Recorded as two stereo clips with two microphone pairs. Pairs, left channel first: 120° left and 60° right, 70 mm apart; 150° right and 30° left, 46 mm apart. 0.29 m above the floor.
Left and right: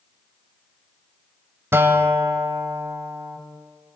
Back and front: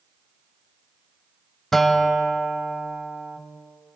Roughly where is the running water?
I don't hear running water.